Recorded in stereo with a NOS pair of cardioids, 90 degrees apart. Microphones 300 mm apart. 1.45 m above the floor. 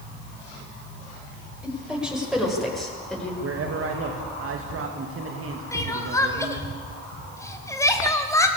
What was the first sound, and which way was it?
A woman speaking, 5° right.